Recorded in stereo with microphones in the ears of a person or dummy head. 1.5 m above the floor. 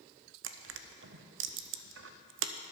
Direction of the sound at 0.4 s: 65° right (ahead or behind).